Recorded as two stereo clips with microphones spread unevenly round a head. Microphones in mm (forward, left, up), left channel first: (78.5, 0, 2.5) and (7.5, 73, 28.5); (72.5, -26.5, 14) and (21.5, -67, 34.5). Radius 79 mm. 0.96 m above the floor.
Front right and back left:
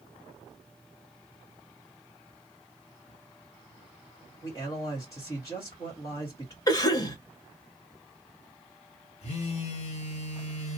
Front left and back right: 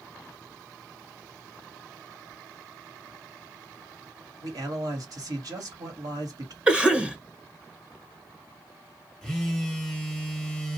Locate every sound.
4.4 s a man speaking: 110° right, 1.4 m
6.7 s a cough: 55° right, 0.9 m
9.2 s a phone buzzing: 55° right, 0.9 m